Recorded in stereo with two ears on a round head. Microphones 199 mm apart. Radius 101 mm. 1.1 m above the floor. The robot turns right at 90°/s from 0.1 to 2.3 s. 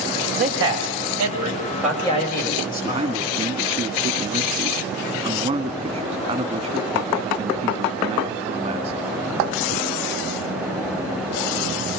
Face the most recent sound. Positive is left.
turn(degrees=-20)  # may be behind; listen again after turning